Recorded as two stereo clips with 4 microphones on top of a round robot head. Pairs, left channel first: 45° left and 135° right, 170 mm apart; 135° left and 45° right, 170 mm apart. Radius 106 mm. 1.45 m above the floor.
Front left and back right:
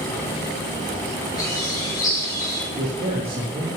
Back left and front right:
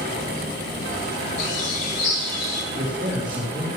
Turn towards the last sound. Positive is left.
turn(degrees=-95)